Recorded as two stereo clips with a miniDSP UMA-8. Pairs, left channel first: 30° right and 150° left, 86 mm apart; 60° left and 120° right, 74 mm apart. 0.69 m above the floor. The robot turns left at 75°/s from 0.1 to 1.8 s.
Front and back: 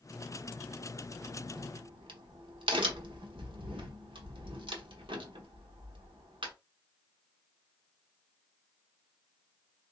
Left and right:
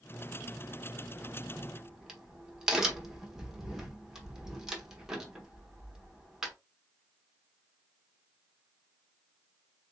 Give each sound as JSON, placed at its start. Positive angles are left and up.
{"t": 1.2, "sound": "a crack", "azimuth_deg": -155, "distance_m": 0.9}